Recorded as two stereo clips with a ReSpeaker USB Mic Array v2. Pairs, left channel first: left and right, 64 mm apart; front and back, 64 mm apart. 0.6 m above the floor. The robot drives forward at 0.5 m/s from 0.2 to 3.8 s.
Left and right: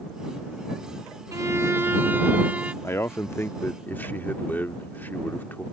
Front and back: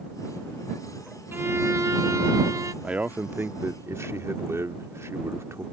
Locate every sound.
1.3 s a violin: 125° right; by 2.7 s 160° right
2.8 s a man speaking: 115° left; by 5.6 s 145° left